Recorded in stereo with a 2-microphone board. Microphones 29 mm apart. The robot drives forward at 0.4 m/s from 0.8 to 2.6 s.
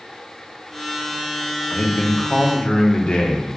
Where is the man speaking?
65° left (ahead or behind), 0.7 m; by 3.5 s 50° left (ahead or behind), 0.8 m.